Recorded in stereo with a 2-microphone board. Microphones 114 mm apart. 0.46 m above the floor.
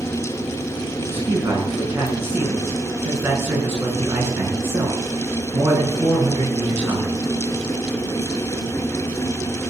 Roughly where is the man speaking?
Right.